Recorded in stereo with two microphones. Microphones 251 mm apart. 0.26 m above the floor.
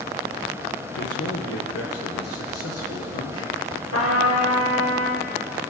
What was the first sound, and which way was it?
A man speaking, 65° left (ahead or behind).